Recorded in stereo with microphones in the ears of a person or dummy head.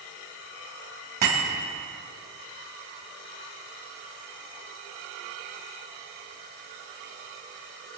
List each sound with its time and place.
1.2 s a bicycle bell: 45° right (ahead or behind), 6 m